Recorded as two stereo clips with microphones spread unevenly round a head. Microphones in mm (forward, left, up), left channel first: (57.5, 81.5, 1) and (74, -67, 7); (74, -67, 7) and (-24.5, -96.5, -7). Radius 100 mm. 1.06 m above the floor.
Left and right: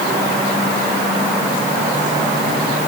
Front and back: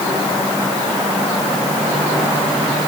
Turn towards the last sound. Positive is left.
No sound to turn to.